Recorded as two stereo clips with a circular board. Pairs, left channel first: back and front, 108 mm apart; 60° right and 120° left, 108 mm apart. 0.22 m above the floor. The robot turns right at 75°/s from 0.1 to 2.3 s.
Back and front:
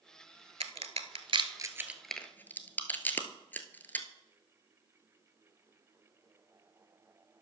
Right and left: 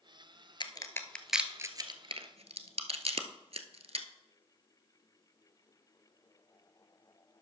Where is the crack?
20° right, 0.9 m; by 4.1 s 110° left, 0.9 m.